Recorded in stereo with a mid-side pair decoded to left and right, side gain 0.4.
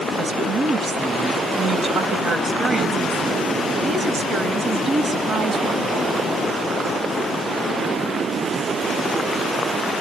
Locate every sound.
0.2 s a woman speaking: 45° right, 3.5 m